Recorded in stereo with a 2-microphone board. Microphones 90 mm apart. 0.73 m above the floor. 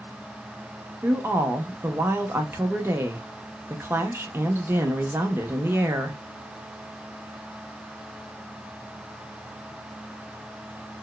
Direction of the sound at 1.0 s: 25° right (ahead or behind).